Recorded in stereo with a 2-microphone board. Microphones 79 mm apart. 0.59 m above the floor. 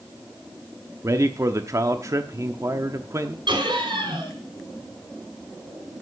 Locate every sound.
1.0 s a man speaking: 40° right (ahead or behind), 0.9 m
3.5 s laughter: 80° right, 4.5 m